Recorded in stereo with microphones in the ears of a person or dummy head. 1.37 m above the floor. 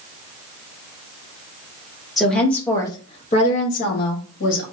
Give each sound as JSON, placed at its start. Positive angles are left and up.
{"t": 2.2, "sound": "a woman speaking", "side_deg": 0, "distance_m": 1.0}